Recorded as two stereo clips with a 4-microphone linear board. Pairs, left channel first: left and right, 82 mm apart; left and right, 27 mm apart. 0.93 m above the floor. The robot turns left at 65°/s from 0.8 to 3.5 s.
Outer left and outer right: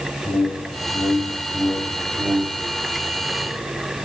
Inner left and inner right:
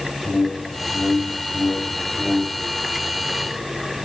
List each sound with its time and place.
0.2 s a whoosh: 70° left, 1.6 m; by 2.7 s 50° right, 1.6 m